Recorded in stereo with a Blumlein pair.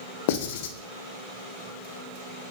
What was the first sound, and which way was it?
Writing, 50° left.